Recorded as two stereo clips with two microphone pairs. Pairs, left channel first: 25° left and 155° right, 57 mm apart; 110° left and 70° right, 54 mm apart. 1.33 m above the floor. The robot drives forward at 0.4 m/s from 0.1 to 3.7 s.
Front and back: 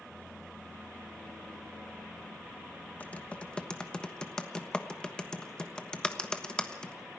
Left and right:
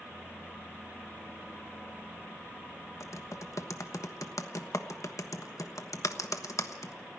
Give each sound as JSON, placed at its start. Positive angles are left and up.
{"t": 3.0, "sound": "typing on a keyboard", "azimuth_deg": 90, "distance_m": 1.2}